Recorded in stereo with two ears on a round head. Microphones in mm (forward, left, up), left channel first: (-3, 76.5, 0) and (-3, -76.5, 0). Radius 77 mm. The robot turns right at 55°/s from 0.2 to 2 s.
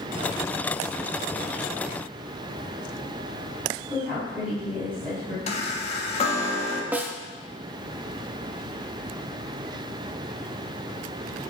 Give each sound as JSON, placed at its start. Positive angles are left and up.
{"t": 3.9, "sound": "a woman speaking", "side_deg": -10, "distance_m": 4.5}
{"t": 5.5, "sound": "a chime", "side_deg": 35, "distance_m": 1.4}
{"t": 6.9, "sound": "a snare drum", "side_deg": -10, "distance_m": 0.8}